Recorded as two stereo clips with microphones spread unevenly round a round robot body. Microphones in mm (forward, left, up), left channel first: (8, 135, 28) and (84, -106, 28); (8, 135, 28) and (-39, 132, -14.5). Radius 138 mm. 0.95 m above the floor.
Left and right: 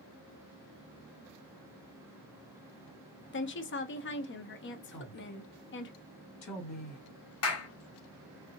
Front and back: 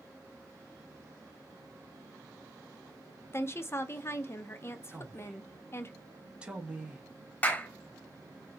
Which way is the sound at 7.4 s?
80° left.